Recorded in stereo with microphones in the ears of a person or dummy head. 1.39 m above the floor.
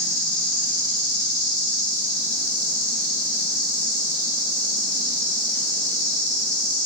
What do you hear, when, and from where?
0.0 s an insect: 80° left, 3.5 m